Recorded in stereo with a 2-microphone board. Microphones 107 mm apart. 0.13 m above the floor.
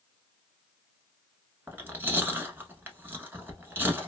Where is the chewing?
20° right (ahead or behind), 0.8 m.